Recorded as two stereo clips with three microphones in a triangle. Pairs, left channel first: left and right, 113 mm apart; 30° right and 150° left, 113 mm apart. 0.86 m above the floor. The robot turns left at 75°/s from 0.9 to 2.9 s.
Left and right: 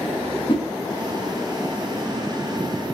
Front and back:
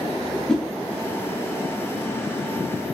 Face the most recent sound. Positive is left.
turn(degrees=-95)